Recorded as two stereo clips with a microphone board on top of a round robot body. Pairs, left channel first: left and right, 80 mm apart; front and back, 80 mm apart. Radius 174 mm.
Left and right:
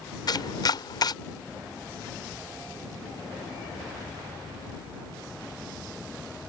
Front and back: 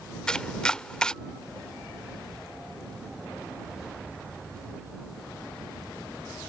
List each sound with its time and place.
0.3 s chopping: 80° left